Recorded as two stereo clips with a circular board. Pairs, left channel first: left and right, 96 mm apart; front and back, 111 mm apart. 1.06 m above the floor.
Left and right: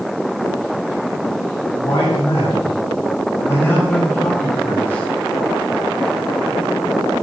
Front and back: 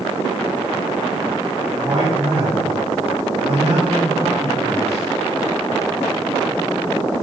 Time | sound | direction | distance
1.8 | a man speaking | 135° left | 7.5 m